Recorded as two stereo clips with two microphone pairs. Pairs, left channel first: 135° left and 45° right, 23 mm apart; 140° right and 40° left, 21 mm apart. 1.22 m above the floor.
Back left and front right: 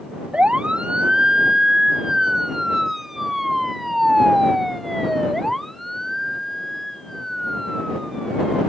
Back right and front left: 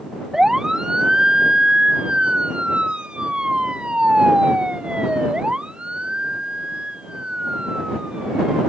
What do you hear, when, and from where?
0.3 s a siren: 15° right; by 8.6 s 65° left